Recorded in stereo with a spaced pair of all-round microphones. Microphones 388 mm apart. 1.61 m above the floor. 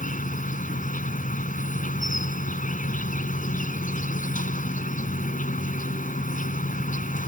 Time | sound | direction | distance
0.0 | an insect | 20° left (ahead or behind) | ?